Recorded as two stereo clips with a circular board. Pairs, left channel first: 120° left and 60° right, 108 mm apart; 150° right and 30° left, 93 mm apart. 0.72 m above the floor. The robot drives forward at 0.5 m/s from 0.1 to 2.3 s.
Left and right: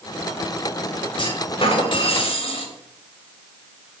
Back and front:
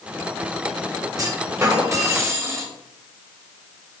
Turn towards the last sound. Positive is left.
turn(degrees=90)